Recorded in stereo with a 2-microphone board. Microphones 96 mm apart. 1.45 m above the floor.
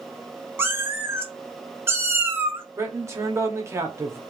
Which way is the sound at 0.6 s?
25° right (ahead or behind).